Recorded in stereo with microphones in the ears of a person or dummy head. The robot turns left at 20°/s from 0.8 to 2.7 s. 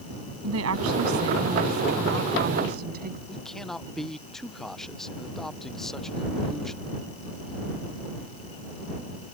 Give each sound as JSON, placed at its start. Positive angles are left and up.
{"t": 0.4, "sound": "a woman speaking", "azimuth_deg": -100}
{"t": 3.3, "sound": "a man speaking", "side_deg": 10}